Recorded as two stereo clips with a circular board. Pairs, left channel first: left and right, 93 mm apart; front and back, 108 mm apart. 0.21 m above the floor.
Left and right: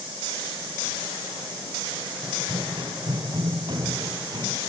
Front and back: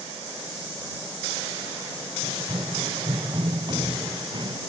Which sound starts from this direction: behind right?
Running footsteps, at 2.2 s.